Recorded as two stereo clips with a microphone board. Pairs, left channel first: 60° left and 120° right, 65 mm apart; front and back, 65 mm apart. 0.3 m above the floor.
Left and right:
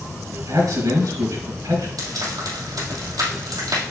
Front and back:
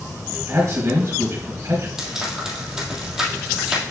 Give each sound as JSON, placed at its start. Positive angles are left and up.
{"t": 0.5, "sound": "a man speaking", "azimuth_deg": -140, "distance_m": 3.5}
{"t": 2.0, "sound": "frying", "azimuth_deg": -100, "distance_m": 3.0}